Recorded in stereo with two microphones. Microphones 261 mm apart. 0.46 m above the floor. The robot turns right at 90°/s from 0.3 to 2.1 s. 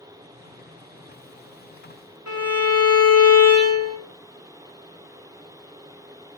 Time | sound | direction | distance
2.3 | a violin | 70° left (ahead or behind) | 0.6 m